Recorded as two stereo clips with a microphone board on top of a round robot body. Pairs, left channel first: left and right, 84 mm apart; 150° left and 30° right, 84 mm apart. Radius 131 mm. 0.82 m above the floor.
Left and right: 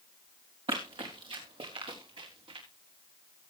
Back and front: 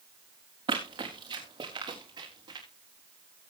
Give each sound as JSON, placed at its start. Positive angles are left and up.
{"t": 0.7, "sound": "running footsteps", "azimuth_deg": -65, "distance_m": 4.0}